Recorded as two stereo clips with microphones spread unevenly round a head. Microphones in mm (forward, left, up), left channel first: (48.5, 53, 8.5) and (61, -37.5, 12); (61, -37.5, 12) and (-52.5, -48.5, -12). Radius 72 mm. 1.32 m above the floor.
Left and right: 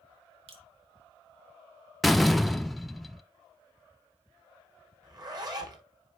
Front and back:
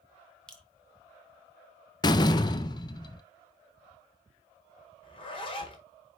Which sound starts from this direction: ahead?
A door slam, at 2.0 s.